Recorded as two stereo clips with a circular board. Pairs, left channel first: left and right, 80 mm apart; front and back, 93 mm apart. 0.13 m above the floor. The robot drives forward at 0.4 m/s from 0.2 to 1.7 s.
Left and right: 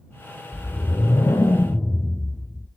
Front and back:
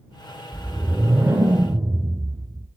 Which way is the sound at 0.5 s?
100° left.